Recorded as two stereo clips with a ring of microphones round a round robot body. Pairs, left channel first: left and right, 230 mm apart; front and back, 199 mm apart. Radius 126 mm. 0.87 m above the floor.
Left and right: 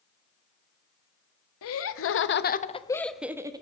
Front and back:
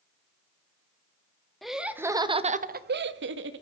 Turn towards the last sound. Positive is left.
turn(degrees=-160)